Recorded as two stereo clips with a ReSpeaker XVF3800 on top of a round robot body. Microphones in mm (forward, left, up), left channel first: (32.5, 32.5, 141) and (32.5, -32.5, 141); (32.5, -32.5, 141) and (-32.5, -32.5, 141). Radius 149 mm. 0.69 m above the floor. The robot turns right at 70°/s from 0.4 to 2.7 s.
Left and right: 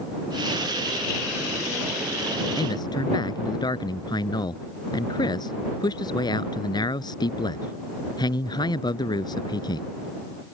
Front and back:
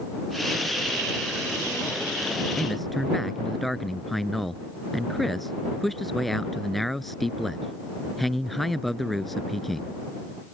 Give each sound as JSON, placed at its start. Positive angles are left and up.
{"t": 2.6, "sound": "a man speaking", "azimuth_deg": 80}